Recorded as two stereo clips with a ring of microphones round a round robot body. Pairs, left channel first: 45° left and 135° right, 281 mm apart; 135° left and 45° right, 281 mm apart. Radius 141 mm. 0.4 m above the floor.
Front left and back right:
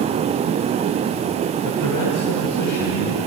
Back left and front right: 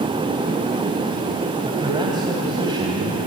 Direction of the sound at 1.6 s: 30° left.